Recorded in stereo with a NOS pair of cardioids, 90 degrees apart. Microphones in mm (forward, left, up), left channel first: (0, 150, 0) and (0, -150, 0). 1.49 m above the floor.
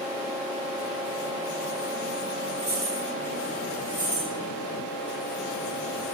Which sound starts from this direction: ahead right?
Keys jangling, at 2.6 s.